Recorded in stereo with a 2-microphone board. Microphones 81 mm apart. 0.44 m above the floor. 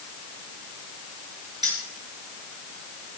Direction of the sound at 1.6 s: 60° right (ahead or behind).